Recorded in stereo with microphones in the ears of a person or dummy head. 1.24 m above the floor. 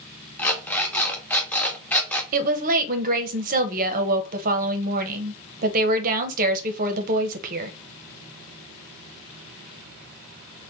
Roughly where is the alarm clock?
Centre.